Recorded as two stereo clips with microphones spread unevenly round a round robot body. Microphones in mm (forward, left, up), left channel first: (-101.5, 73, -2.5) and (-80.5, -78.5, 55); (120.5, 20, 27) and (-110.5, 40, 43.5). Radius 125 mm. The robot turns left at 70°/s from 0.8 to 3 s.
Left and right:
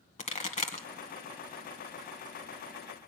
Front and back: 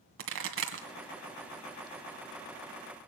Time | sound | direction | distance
0.2 | a pop | 140° left | 2 m